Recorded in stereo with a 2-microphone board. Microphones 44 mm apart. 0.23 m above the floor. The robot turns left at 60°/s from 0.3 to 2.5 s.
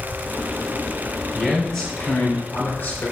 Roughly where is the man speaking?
Behind.